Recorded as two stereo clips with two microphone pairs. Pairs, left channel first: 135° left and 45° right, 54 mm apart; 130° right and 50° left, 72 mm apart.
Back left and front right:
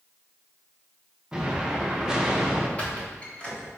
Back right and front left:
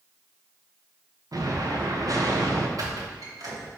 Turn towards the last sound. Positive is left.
turn(degrees=70)